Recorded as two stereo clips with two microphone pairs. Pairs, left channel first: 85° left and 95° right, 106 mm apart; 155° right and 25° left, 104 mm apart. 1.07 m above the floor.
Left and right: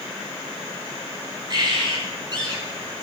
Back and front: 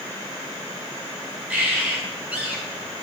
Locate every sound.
1.5 s a bird: 50° right, 6.5 m